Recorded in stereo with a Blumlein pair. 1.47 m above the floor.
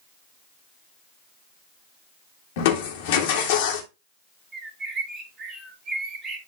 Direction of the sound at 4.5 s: 20° right.